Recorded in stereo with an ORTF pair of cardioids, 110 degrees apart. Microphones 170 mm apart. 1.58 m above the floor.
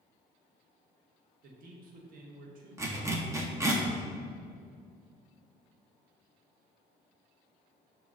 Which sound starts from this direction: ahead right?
A man speaking, at 1.4 s.